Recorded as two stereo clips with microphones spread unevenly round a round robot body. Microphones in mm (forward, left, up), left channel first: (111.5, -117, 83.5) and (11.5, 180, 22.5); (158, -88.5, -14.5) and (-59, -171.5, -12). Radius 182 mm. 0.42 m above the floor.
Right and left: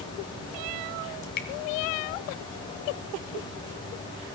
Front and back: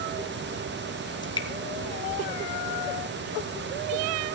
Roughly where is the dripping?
Ahead right.